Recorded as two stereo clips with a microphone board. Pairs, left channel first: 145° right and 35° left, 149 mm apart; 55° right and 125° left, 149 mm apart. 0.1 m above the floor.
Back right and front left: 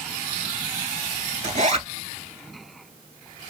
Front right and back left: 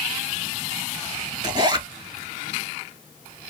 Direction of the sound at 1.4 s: 70° left.